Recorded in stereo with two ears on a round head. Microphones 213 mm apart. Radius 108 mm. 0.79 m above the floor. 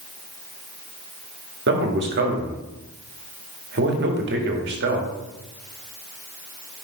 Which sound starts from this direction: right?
A man speaking, at 1.7 s.